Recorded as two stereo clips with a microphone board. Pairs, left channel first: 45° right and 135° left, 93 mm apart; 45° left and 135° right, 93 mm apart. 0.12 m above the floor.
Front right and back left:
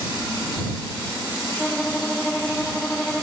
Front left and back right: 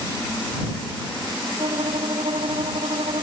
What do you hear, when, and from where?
1.6 s a violin: 125° right